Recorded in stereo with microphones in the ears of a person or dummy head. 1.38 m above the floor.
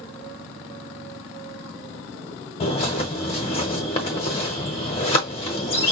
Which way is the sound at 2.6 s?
35° left (ahead or behind).